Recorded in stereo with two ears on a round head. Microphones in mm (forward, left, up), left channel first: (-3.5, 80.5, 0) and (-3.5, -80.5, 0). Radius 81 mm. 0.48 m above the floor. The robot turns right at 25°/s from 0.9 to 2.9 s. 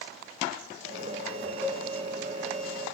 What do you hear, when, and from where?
1.6 s a cowbell: 15° left (ahead or behind), 8.5 m; by 1.9 s 10° left (ahead or behind), 8.5 m